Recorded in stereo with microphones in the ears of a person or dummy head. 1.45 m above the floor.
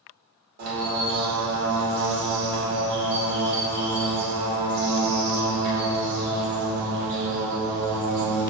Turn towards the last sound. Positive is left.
turn(degrees=-40)  # may be behind; listen again after turning